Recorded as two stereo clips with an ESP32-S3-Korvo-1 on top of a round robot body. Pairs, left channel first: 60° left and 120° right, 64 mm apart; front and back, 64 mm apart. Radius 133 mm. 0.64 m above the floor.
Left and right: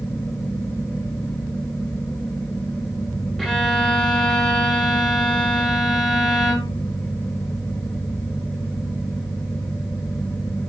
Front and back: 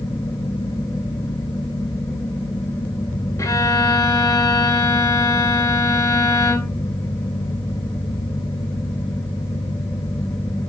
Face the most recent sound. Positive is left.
turn(degrees=-25)